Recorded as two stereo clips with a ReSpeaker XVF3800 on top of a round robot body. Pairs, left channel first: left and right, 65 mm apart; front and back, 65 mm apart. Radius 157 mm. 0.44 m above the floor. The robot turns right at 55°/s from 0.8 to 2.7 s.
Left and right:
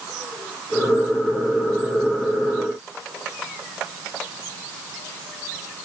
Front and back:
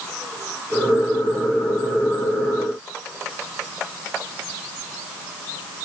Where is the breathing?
No breathing in this recording.